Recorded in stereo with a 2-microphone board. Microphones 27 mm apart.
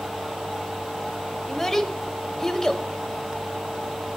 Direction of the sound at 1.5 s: 15° left (ahead or behind).